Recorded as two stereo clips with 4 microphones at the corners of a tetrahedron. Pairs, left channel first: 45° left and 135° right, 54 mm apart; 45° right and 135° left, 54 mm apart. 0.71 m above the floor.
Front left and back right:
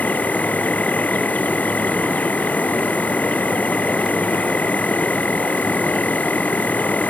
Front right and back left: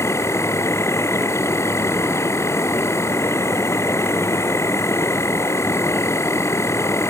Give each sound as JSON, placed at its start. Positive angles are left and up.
{"t": 0.0, "sound": "an insect", "azimuth_deg": -15}